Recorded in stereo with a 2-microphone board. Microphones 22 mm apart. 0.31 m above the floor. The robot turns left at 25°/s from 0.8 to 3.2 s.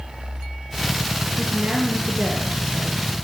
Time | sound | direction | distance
1.4 | a woman speaking | 70° right | 6.5 m